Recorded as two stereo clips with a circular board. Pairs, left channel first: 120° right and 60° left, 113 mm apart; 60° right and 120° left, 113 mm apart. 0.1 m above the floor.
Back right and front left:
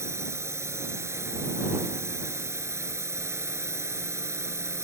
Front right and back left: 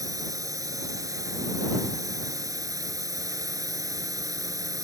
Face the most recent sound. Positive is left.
turn(degrees=100)